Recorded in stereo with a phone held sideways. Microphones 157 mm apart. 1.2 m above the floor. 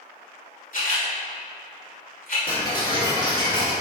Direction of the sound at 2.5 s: 30° left (ahead or behind).